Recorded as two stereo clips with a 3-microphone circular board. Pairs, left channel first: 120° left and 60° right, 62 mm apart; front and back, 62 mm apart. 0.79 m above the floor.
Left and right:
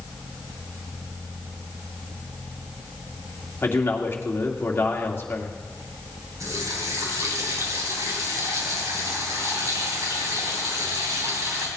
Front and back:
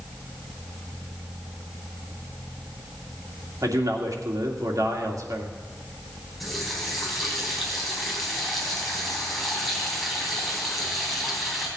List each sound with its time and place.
3.6 s a man speaking: 170° left, 2 m
6.4 s a running tap: 90° right, 3.5 m